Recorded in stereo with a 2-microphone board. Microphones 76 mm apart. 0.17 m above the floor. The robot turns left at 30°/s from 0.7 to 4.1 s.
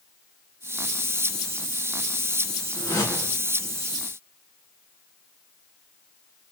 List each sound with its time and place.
2.8 s a whoosh: 50° left (ahead or behind), 1.9 m; by 3.4 s 45° left (ahead or behind), 1.9 m